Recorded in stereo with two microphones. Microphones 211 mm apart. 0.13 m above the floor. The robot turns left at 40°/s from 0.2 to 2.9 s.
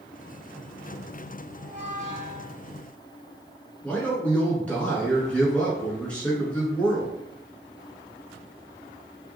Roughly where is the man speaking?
Centre.